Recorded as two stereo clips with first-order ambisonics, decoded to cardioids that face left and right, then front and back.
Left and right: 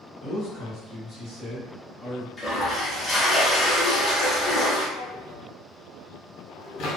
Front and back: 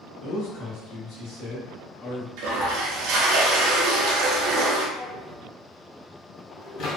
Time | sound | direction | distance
0.2 | a man speaking | 5° right | 1.5 m
2.4 | a toilet flushing | 170° left | 0.7 m
5.0 | a drawer | 50° left | 1.2 m